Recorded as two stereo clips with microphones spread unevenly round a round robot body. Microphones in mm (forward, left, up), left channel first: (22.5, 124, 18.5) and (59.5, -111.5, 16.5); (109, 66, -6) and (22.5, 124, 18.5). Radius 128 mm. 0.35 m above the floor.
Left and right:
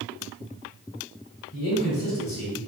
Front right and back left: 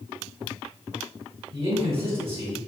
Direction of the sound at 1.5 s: 115° left.